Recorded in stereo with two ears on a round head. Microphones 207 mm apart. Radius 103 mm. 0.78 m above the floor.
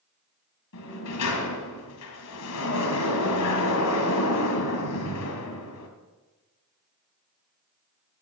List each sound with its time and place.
0.7 s a sliding door: 80° left, 2 m